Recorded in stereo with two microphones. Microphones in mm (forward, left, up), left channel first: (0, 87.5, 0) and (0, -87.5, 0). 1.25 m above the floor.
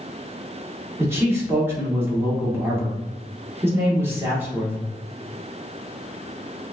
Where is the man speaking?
15° right (ahead or behind), 1.8 m.